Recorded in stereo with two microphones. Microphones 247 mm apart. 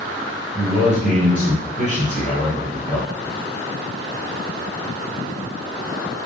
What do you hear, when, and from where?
0.6 s a man speaking: 25° right (ahead or behind), 1.5 m